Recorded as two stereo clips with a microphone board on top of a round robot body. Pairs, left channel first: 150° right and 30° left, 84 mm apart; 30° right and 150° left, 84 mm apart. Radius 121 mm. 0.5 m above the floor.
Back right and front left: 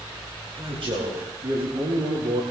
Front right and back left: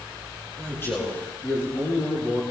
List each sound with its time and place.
0.6 s a man speaking: 25° left, 9 m; by 2.4 s 20° left, 8 m